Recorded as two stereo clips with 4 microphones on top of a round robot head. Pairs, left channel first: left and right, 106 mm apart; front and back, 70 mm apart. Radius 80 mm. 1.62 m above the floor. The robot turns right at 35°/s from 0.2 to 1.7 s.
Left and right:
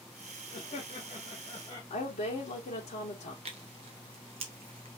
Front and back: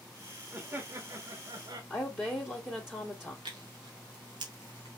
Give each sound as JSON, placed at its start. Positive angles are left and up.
{"t": 0.5, "sound": "laughter", "azimuth_deg": 120, "distance_m": 1.0}
{"t": 1.9, "sound": "a woman speaking", "azimuth_deg": 70, "distance_m": 1.7}
{"t": 3.5, "sound": "tearing paper", "azimuth_deg": -135, "distance_m": 0.8}